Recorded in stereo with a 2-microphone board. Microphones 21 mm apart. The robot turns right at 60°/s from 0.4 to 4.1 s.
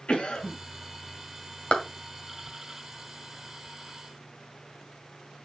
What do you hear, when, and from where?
0.1 s a cough: 65° left (ahead or behind), 2.5 m; by 0.6 s 60° left (ahead or behind), 2.5 m
1.7 s a clap: 70° left (ahead or behind), 1.9 m